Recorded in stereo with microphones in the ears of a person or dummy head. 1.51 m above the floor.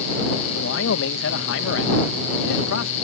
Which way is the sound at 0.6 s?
75° left (ahead or behind).